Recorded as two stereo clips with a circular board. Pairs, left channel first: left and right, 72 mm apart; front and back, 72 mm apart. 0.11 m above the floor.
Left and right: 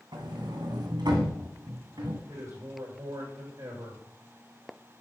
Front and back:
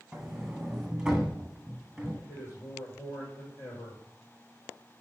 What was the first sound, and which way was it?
A sliding door, 95° right.